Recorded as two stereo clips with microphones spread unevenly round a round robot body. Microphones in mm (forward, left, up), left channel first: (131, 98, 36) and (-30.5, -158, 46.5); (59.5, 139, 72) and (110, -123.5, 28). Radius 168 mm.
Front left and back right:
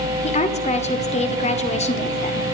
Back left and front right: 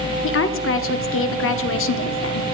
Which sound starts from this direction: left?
A woman speaking, at 0.2 s.